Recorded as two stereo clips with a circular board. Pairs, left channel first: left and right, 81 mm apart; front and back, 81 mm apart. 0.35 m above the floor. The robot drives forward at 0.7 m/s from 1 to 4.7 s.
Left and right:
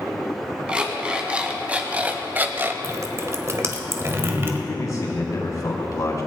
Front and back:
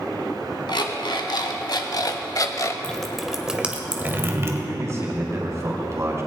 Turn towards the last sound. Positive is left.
turn(degrees=130)